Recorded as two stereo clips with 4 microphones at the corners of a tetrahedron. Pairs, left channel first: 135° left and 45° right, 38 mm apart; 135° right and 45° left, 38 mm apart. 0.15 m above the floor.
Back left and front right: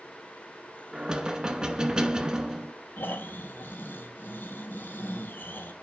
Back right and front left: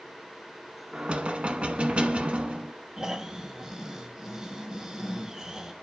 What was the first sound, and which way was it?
Knocking, 10° left.